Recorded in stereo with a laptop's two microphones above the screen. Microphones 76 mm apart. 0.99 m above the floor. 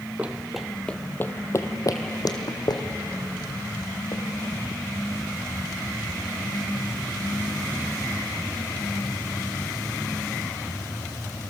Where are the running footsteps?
20° right (ahead or behind), 1.1 m; by 4.2 s 75° left (ahead or behind), 3.5 m.